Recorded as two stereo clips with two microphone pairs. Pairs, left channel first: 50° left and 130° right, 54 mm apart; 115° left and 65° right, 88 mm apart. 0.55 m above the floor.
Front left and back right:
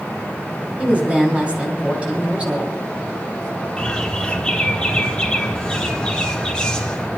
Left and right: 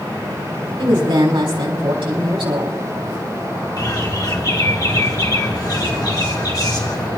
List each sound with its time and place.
0.8 s a woman speaking: 70° right, 4 m
3.8 s a bird: 110° left, 1.7 m